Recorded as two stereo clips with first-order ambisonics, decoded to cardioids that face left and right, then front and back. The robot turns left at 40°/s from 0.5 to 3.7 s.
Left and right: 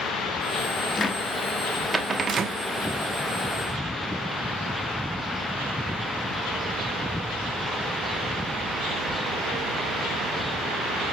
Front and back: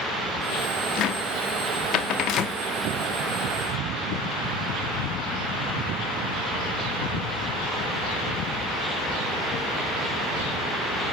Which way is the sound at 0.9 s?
25° left.